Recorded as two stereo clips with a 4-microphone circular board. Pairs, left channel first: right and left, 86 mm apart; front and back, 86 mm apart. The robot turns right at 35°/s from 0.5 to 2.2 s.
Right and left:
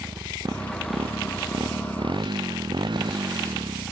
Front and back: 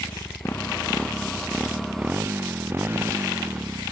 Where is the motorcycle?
60° left; by 3.9 s 115° left.